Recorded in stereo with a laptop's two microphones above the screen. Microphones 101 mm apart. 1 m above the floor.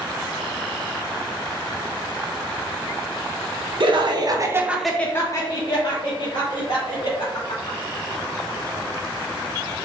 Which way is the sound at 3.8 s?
60° right (ahead or behind).